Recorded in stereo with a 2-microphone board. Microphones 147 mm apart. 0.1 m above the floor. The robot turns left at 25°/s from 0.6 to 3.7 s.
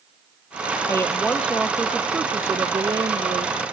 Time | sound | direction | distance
0.9 | a woman speaking | 20° left | ?